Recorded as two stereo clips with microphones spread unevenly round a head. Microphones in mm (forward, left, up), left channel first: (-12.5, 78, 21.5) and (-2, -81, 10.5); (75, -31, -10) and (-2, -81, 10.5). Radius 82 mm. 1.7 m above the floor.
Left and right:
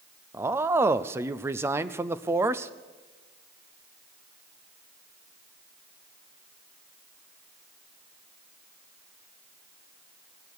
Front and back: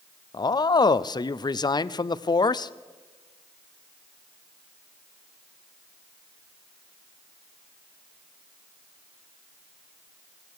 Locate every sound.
0.3 s a man speaking: 10° right, 0.5 m